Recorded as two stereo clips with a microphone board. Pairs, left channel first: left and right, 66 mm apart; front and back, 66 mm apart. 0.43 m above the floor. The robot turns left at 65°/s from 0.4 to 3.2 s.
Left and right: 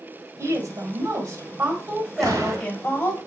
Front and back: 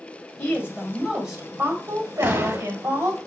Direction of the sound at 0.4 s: 45° right.